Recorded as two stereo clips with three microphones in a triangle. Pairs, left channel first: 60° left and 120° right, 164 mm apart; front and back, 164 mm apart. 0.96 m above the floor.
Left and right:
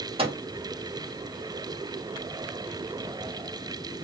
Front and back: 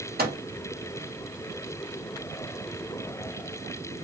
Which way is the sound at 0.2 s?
175° right.